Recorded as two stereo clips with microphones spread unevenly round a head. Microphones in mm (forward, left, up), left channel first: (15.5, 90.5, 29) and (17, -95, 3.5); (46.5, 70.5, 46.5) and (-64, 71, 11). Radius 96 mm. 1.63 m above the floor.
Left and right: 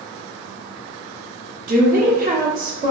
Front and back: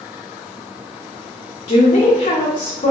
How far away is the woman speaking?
About 1.0 m.